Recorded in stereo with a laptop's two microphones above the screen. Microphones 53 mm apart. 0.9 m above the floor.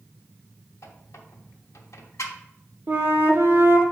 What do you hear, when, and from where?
0.8 s a squeak: 80° left, 1.0 m
2.9 s a flute: 50° right (ahead or behind), 1.1 m